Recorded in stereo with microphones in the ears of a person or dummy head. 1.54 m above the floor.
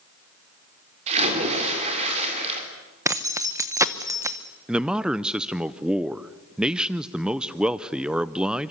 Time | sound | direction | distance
1.1 | a splash | 40° right (ahead or behind) | 4 m
3.0 | keys jangling | 10° right (ahead or behind) | 0.9 m
4.7 | a man speaking | 5° right (ahead or behind) | 0.6 m